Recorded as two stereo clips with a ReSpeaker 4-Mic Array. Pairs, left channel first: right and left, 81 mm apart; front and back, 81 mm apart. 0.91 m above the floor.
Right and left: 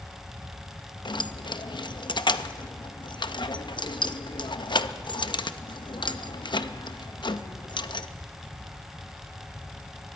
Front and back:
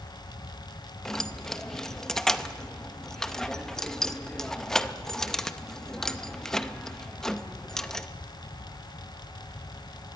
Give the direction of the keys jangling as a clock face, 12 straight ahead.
3 o'clock.